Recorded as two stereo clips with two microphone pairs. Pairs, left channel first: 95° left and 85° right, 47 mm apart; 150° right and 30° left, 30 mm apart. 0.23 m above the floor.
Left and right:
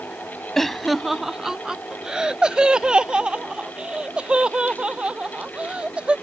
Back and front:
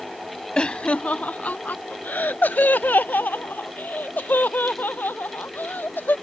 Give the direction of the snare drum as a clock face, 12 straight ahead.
I don't hear a snare drum.